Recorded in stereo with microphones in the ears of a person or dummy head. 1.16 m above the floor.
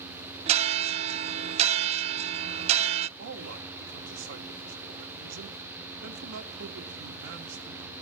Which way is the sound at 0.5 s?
35° right (ahead or behind).